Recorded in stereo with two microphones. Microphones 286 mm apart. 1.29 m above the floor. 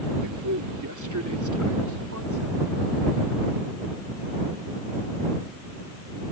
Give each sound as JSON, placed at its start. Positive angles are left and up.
{"t": 0.2, "sound": "a man speaking", "side_deg": -75}